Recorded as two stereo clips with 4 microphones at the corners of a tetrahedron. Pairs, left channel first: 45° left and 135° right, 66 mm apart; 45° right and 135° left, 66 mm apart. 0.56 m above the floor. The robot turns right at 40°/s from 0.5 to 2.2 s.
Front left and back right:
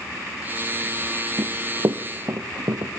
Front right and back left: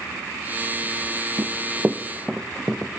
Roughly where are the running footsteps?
Behind.